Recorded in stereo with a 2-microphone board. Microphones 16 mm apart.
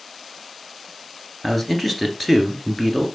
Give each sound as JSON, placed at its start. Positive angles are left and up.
{"t": 1.4, "sound": "a man speaking", "side_deg": 5, "distance_m": 1.5}